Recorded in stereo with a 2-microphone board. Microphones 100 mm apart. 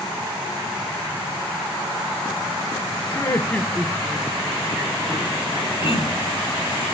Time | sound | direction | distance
3.1 | laughter | 30° left (ahead or behind) | 1.0 m
5.8 | throat clearing | 75° left (ahead or behind) | 2 m